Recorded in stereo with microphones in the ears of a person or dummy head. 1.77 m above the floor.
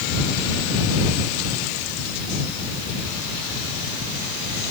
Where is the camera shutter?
I don't hear a camera shutter.